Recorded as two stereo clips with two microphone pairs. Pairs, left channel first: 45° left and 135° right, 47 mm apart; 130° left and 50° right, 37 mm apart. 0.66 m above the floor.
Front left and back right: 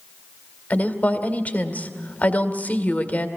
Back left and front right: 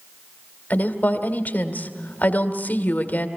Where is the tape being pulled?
I don't hear tape being pulled.